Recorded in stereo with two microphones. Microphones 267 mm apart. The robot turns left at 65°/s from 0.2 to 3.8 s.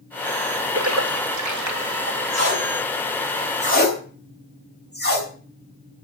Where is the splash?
45° right (ahead or behind), 2.5 m; by 2.2 s 40° right (ahead or behind), 2.5 m.